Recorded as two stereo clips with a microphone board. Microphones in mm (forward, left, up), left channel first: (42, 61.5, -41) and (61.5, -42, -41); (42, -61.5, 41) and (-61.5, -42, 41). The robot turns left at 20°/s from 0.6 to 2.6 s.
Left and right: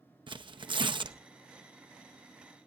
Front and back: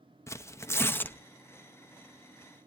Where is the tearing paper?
70° right, 0.6 m; by 1.2 s 85° right, 0.6 m.